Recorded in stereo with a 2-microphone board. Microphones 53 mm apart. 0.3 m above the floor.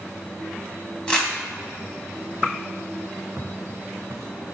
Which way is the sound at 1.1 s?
20° left (ahead or behind).